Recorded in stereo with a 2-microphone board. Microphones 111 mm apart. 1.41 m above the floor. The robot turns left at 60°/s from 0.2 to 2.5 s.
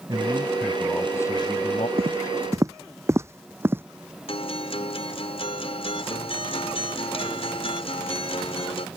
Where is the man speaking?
145° right; by 1.9 s 115° left.